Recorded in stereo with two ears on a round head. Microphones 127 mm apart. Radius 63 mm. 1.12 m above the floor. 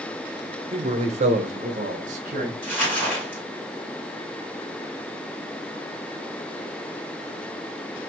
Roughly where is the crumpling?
Centre.